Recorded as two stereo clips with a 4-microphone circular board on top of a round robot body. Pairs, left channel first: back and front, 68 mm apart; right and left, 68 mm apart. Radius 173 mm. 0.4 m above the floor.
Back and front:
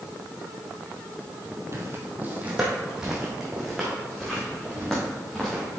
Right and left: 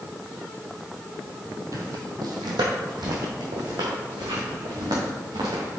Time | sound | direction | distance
1.7 | footsteps | 50° left | 0.8 m